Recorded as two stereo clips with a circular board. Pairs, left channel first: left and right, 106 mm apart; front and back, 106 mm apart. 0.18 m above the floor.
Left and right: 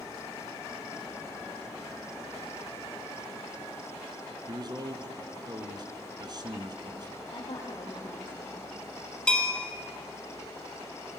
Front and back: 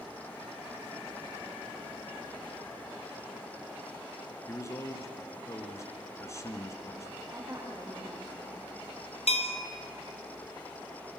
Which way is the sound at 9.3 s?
10° left.